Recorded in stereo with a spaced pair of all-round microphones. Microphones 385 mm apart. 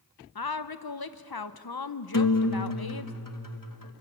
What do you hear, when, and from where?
0.3 s a woman speaking: 65° left (ahead or behind), 0.8 m
2.1 s a guitar: 55° left (ahead or behind), 1.4 m